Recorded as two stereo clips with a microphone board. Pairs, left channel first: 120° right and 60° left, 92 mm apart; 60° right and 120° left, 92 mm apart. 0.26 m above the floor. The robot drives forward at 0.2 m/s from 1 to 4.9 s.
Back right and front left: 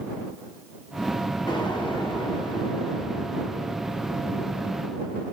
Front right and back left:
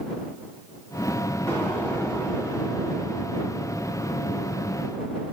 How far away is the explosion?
About 2.5 m.